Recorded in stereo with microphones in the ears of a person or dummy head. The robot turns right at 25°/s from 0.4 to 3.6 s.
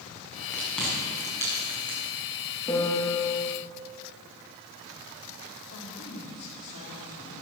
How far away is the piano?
About 2.5 m.